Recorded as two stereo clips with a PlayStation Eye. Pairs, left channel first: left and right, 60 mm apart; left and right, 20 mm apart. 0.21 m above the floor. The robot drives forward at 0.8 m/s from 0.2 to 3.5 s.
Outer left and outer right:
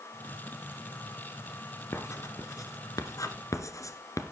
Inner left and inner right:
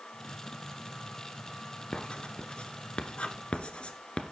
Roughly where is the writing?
Left.